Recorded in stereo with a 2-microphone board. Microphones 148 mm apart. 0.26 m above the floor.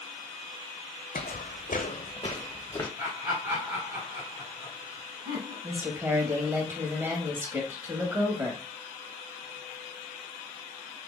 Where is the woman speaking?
15° right (ahead or behind), 1.0 m.